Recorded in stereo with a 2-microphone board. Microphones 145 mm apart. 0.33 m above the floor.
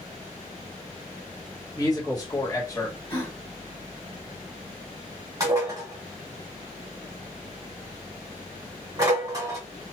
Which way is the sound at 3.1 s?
20° left (ahead or behind).